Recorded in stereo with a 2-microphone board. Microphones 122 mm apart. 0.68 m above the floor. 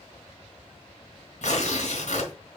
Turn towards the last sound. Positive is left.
turn(degrees=70)  # may be behind; listen again after turning